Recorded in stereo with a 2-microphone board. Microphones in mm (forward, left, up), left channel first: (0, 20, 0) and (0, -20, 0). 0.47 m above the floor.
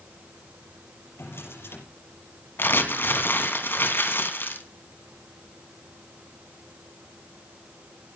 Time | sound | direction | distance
1.2 | a drawer | 80° left | 6 m
2.6 | crumpling | 65° left (ahead or behind) | 3 m